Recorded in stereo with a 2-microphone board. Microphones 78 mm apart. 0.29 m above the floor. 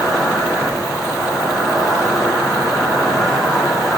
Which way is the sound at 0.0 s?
Centre (ahead or behind).